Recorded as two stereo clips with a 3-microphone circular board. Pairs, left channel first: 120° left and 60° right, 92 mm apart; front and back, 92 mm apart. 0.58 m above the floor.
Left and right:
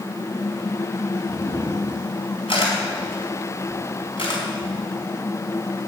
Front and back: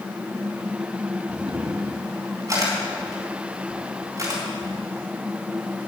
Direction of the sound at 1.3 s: 130° left.